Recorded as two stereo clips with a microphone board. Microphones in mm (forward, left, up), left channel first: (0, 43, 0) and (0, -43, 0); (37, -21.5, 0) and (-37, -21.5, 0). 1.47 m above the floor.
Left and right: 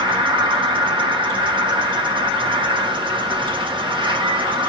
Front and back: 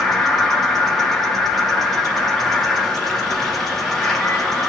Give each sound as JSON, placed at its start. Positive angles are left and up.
{"t": 0.0, "sound": "an insect", "azimuth_deg": -85, "distance_m": 1.1}